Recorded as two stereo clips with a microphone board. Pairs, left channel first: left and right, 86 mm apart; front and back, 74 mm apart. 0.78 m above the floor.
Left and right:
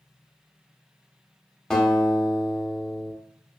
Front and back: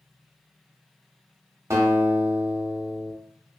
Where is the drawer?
I don't hear a drawer.